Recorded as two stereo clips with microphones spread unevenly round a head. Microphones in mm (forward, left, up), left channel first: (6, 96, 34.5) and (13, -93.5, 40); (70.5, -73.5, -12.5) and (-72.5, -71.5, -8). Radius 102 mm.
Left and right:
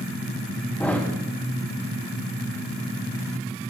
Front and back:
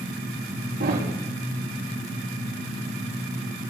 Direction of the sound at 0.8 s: 175° left.